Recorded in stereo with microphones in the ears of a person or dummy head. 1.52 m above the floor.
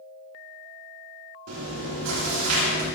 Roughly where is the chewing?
Right.